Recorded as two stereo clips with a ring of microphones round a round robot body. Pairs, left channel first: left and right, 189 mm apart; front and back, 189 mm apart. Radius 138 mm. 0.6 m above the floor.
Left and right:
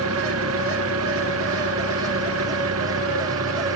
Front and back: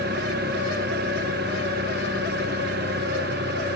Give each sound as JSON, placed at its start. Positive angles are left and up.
{"t": 0.0, "sound": "an engine running", "azimuth_deg": -120}